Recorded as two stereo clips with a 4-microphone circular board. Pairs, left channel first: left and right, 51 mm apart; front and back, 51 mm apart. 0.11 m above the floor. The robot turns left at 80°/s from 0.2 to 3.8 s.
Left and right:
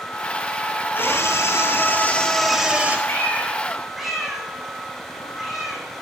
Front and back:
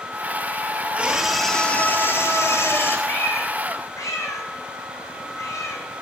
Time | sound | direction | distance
0.9 | a scream | 125° left | 3 m
3.1 | a cat meowing | 55° left | 2.5 m